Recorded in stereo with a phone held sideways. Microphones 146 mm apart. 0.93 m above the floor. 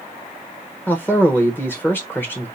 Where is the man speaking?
15° left (ahead or behind), 0.9 m.